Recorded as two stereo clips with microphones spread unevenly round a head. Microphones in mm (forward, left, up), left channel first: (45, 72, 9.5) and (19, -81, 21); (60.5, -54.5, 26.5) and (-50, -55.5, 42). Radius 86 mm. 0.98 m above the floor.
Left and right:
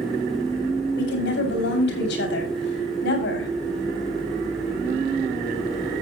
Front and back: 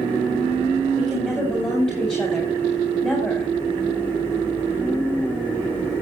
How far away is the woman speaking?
About 5 m.